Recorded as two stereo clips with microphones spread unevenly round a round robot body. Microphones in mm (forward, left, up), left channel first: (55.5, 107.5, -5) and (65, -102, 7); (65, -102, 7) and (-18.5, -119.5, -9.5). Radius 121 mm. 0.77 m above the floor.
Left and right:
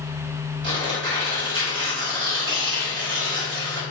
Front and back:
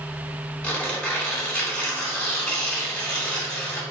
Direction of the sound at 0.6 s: 65° right.